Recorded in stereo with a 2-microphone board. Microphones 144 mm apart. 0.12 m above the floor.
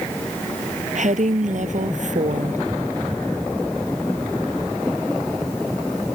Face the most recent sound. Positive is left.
turn(degrees=-55)  # may be behind; listen again after turning